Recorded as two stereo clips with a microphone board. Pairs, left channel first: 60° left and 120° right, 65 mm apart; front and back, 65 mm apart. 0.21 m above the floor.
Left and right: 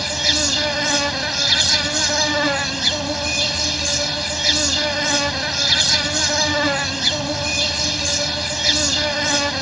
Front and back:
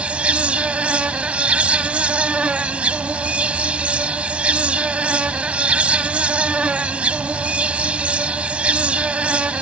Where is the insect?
155° left.